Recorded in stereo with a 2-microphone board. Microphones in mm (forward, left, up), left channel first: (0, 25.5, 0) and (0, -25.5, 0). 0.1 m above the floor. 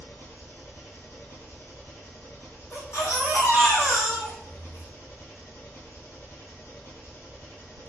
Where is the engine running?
60° left (ahead or behind), 1.1 m.